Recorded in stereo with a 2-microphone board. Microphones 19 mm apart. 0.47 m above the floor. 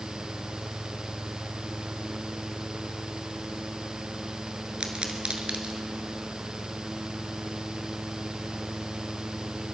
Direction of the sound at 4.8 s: 70° right (ahead or behind).